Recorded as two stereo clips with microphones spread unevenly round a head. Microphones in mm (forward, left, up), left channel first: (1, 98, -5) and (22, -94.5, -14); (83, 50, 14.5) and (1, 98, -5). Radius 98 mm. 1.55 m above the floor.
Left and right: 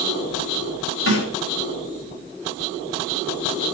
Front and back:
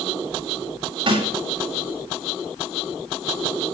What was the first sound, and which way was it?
A snare drum, 120° left.